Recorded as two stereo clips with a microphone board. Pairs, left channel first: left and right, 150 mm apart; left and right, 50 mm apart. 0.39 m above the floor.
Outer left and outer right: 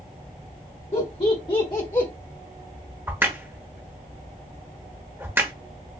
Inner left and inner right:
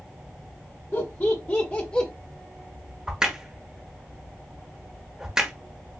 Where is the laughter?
40° left (ahead or behind), 1.3 m; by 2.1 s 20° left (ahead or behind), 1.2 m.